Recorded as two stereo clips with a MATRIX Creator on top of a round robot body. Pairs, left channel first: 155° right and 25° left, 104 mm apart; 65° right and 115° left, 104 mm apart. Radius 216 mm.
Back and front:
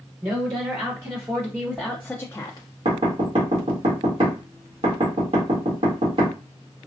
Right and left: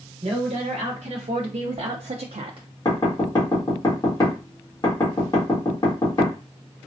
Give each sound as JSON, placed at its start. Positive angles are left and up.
{"t": 0.2, "sound": "a woman speaking", "azimuth_deg": 80, "distance_m": 1.3}
{"t": 2.9, "sound": "knocking", "azimuth_deg": -10, "distance_m": 1.5}